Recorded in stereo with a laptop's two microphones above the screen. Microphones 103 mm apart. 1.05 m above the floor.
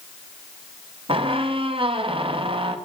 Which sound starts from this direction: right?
A squeak, at 1.1 s.